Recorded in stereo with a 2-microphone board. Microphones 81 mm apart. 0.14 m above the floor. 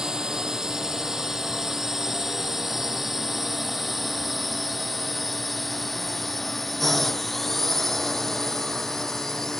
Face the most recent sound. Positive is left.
turn(degrees=5)  # may be behind; listen again after turning